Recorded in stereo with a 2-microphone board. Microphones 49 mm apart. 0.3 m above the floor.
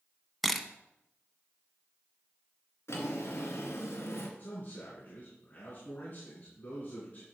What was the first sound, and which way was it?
A camera shutter, centre (ahead or behind).